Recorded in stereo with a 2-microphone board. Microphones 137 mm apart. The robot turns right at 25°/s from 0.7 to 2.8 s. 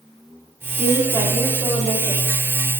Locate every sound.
0.8 s a woman speaking: 10° right, 5 m; by 2.3 s 30° left, 5 m